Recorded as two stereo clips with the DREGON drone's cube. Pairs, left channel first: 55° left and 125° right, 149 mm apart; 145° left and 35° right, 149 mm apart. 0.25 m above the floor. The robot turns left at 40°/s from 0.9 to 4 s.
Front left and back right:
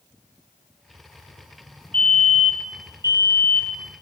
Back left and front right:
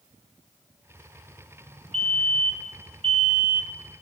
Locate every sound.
1.9 s a fire alarm: 20° right, 3.5 m; by 3.8 s 90° right, 3.5 m